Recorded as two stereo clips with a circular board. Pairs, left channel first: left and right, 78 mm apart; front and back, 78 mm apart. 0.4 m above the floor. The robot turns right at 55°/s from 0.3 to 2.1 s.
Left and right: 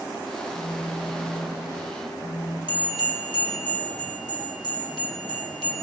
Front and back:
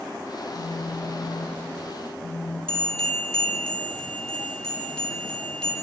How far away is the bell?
About 3 m.